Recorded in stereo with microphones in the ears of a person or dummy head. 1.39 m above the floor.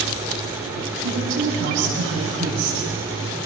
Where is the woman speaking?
80° right, 8 m.